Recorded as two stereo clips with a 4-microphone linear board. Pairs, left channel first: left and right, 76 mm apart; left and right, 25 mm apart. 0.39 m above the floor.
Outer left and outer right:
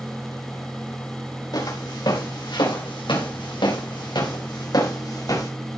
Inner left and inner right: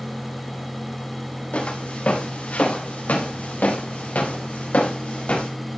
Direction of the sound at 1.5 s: 60° left (ahead or behind).